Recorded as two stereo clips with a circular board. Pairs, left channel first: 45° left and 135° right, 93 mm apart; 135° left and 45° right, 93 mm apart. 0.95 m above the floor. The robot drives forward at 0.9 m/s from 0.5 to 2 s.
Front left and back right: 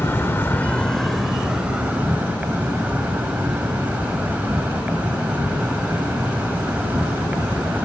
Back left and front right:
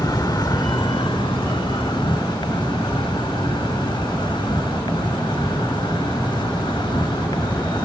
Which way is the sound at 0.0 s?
105° left.